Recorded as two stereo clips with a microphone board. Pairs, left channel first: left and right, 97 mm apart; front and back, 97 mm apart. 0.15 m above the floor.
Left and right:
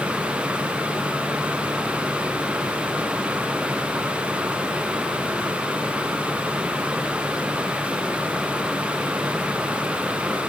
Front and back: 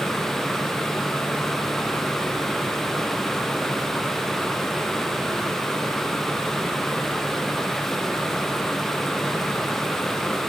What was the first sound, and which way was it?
Only background noise.